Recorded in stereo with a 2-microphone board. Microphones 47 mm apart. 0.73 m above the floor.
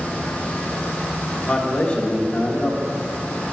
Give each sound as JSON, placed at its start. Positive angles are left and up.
{"t": 1.4, "sound": "a man speaking", "side_deg": 20, "distance_m": 0.8}